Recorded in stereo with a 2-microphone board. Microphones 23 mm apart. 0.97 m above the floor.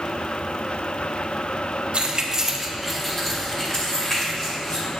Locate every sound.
1.9 s keys jangling: 50° right (ahead or behind), 1.2 m; by 4.8 s 40° left (ahead or behind), 4 m